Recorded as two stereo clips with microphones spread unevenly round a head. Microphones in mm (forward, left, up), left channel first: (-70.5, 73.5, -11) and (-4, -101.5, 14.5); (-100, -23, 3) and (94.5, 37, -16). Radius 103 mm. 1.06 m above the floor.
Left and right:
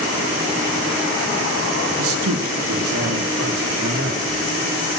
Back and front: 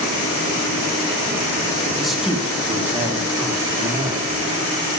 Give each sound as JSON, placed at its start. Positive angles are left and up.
{"t": 2.0, "sound": "a man speaking", "azimuth_deg": -70, "distance_m": 1.0}
{"t": 3.8, "sound": "a man speaking", "azimuth_deg": -55, "distance_m": 3.0}